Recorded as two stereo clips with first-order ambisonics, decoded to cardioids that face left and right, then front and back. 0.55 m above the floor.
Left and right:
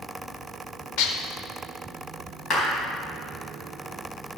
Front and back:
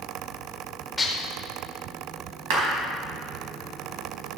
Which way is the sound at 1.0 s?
75° left.